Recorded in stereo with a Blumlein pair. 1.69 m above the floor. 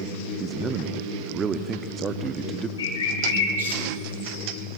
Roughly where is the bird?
Left.